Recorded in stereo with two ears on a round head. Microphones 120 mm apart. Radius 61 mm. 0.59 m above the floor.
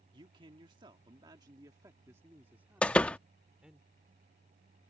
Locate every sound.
0.1 s a man speaking: 35° right (ahead or behind); by 3.8 s 5° right (ahead or behind)
2.8 s a door slam: 10° left (ahead or behind)